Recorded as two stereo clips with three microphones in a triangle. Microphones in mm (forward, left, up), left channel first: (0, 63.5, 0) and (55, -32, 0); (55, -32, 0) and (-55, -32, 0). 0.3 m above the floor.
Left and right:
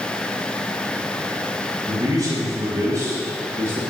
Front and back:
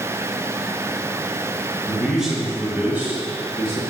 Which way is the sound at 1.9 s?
90° right.